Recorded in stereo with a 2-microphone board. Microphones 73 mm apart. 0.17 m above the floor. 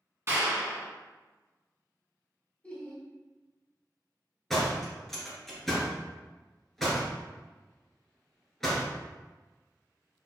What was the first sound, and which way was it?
A clap, 35° right (ahead or behind).